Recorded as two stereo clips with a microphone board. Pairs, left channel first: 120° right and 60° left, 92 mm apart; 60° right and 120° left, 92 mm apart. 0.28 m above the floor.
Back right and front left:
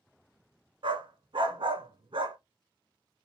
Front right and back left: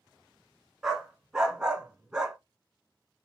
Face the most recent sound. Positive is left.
turn(degrees=35)